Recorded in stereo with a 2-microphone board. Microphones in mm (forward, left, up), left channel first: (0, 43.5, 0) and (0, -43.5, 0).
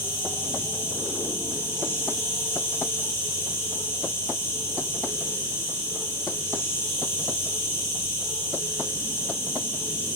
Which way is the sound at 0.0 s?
35° left (ahead or behind).